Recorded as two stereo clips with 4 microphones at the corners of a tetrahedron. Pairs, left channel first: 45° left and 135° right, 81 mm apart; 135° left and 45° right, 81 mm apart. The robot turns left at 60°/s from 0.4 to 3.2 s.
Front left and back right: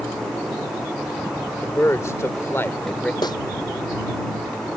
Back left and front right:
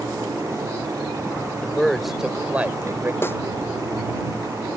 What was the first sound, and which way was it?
A man speaking, 70° left.